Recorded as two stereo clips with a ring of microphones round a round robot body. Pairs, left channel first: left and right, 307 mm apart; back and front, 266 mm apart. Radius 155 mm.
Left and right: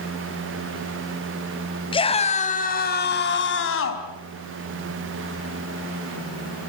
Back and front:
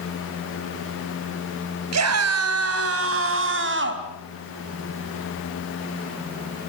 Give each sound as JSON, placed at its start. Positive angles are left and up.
{"t": 1.9, "sound": "a scream", "azimuth_deg": 15, "distance_m": 3.0}